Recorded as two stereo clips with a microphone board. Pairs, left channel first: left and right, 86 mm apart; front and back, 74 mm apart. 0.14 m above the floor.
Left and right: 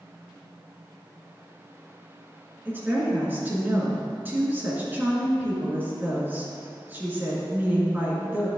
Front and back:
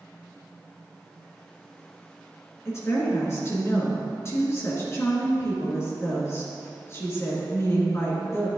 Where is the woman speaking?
30° right, 1.8 m.